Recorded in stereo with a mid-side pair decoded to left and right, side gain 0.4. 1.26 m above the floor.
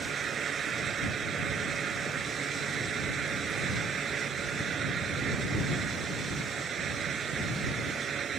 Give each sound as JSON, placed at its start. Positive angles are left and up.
{"t": 0.0, "sound": "a fan", "azimuth_deg": -60}